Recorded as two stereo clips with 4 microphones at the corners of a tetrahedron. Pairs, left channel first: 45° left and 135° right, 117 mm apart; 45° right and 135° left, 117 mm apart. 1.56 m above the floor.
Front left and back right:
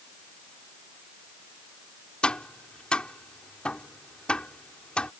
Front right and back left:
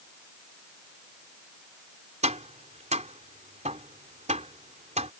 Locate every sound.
2.2 s tapping: 125° left